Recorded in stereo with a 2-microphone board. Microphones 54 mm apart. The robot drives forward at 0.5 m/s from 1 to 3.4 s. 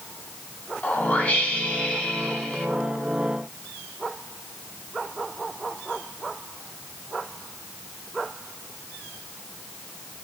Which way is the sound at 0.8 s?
35° left (ahead or behind).